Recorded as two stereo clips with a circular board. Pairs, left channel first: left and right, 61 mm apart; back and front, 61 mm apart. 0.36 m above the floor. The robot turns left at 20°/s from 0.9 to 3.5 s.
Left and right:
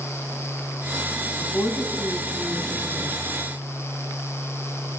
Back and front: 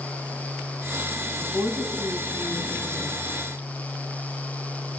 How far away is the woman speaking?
About 3 m.